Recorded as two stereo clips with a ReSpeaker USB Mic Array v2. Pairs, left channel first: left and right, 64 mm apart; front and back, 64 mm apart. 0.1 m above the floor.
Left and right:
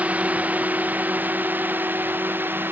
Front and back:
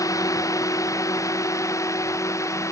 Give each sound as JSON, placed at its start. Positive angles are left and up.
{"t": 0.0, "sound": "a drone", "azimuth_deg": -25}